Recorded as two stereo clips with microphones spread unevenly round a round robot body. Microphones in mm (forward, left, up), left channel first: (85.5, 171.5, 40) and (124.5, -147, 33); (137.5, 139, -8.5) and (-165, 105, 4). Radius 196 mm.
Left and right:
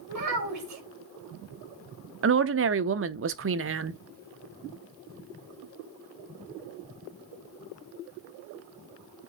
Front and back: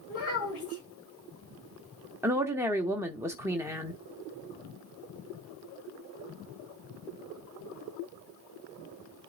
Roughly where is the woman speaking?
Right.